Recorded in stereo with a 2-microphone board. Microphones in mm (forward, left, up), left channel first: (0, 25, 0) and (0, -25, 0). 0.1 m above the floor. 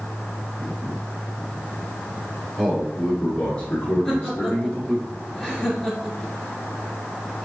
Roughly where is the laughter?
Centre.